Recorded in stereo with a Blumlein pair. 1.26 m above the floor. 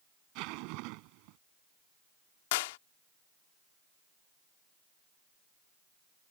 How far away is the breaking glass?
No breaking glass in this recording.